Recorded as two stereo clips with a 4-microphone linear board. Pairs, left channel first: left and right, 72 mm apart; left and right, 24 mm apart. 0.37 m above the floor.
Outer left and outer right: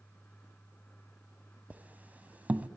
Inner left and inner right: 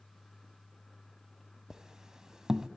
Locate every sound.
1.7 s a squeak: 20° right (ahead or behind), 1.3 m